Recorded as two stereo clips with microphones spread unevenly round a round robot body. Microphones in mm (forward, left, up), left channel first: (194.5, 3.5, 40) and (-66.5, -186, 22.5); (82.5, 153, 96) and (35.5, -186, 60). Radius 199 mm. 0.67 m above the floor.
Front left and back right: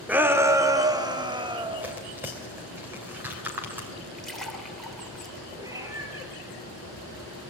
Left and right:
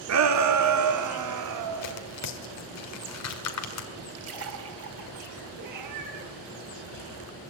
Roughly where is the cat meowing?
Ahead right.